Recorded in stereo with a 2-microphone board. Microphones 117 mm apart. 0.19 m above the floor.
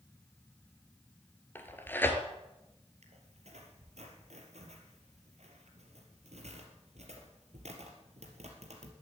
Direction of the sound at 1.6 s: 15° left (ahead or behind).